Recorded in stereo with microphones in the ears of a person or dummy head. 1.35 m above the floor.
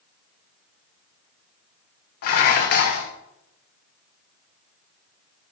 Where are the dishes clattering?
50° left (ahead or behind), 0.9 m.